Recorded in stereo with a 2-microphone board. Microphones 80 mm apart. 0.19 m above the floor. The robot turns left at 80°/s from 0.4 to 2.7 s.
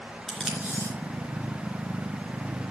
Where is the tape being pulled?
Centre (ahead or behind), 3 m; by 0.9 s 35° right (ahead or behind), 3 m.